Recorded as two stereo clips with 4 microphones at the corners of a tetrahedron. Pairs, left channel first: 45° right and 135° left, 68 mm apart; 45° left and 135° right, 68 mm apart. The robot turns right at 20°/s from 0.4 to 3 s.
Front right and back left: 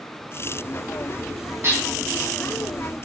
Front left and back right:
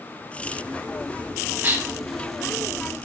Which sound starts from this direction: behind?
Dishes clattering, at 1.6 s.